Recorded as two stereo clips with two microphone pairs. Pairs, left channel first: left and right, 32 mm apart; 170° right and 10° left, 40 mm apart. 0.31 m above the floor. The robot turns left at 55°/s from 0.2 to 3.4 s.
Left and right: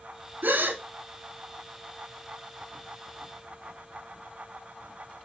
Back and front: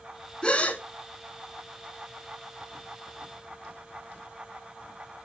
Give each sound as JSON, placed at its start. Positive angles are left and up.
{"t": 0.4, "sound": "a gasp", "azimuth_deg": -105, "distance_m": 0.5}